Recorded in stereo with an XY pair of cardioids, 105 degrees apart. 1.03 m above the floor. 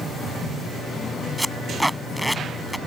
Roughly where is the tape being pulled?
Ahead.